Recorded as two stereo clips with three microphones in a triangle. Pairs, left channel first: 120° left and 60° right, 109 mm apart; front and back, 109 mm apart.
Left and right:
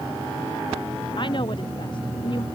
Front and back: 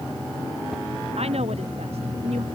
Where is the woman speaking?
160° left.